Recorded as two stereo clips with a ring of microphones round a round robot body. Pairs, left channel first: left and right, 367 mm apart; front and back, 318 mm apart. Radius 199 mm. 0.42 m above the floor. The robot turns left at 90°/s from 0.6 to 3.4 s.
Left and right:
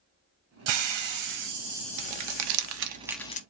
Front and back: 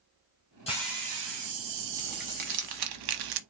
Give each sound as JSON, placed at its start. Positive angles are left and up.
{"t": 0.7, "sound": "a hiss", "azimuth_deg": -75, "distance_m": 1.7}
{"t": 2.0, "sound": "crumpling", "azimuth_deg": -75, "distance_m": 0.8}